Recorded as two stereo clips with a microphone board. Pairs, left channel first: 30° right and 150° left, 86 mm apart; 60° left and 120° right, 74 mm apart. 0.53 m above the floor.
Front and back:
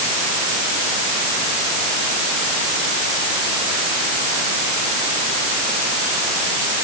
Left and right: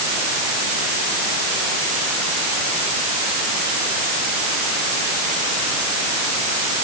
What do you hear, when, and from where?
Only background noise.